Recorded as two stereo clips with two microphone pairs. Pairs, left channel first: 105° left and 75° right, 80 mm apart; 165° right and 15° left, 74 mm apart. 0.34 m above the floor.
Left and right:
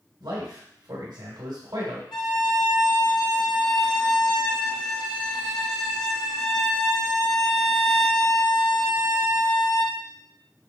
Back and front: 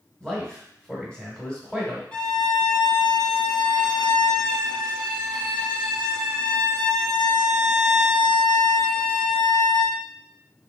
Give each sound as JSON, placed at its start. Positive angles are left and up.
{"t": 0.2, "sound": "a man speaking", "azimuth_deg": -85, "distance_m": 1.7}
{"t": 2.1, "sound": "a violin", "azimuth_deg": 120, "distance_m": 0.7}